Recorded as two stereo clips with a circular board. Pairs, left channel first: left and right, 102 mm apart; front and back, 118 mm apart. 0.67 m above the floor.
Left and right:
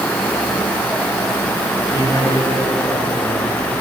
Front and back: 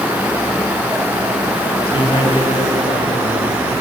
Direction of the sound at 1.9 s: 45° left.